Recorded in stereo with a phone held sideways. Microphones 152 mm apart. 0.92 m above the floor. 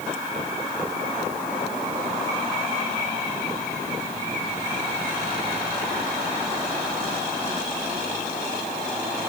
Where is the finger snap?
No finger snap in this recording.